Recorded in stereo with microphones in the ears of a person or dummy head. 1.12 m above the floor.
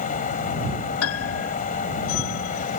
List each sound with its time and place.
0.0 s a fan: 45° left (ahead or behind)
1.0 s a piano: 80° left